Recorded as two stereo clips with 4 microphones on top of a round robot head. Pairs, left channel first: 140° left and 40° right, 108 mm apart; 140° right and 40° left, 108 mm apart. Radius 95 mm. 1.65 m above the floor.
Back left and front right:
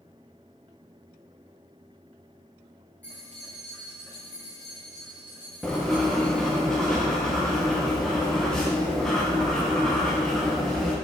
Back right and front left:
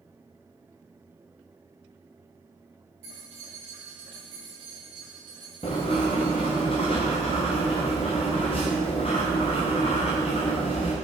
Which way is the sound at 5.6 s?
135° right.